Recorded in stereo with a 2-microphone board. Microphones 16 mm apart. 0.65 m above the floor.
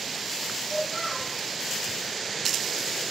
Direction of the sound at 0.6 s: 5° right (ahead or behind).